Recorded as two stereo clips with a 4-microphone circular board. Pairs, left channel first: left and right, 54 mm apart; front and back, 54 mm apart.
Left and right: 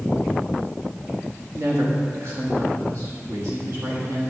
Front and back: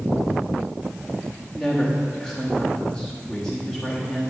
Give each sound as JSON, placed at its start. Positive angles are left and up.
{"t": 1.6, "sound": "a woman speaking", "azimuth_deg": -80, "distance_m": 1.1}